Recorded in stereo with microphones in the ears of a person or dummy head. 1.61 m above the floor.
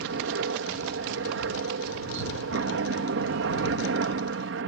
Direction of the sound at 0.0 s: 60° right (ahead or behind).